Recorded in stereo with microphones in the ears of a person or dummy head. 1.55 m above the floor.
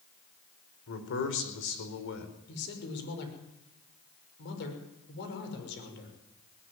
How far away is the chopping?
No chopping in this recording.